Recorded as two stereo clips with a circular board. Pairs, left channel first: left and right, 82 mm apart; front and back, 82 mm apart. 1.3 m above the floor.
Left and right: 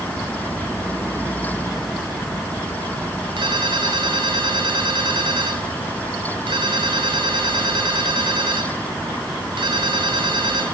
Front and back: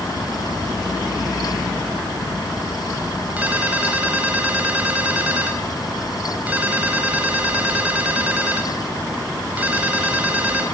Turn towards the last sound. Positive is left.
turn(degrees=-110)